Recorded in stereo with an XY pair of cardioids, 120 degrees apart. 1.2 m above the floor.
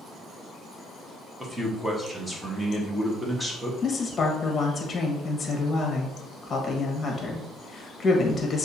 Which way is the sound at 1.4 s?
10° right.